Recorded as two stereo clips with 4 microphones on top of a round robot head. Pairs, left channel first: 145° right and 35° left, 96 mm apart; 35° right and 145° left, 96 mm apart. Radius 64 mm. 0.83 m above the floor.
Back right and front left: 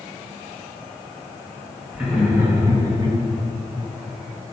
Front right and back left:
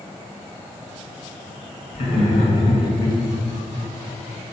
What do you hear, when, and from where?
1.9 s laughter: 45° right, 2 m; by 3.2 s 20° left, 1.2 m